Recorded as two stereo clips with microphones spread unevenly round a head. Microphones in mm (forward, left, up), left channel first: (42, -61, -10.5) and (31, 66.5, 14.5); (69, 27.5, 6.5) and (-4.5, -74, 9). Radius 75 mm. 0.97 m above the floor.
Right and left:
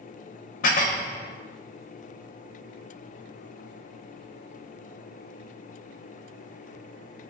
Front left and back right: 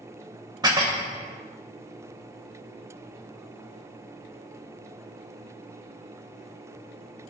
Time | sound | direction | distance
0.6 | dishes clattering | 65° right | 0.8 m